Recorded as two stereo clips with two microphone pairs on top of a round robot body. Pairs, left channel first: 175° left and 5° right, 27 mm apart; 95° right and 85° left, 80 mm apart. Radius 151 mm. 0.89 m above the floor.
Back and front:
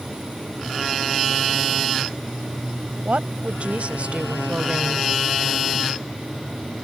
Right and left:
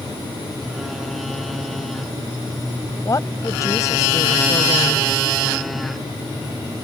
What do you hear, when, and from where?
3.0 s a woman speaking: 40° right; by 5.1 s 50° right